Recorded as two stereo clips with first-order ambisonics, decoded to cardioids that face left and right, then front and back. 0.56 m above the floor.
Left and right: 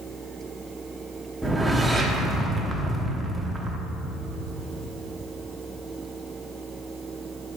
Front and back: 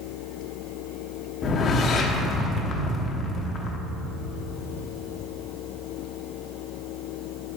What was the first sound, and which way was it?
A whoosh, 10° right.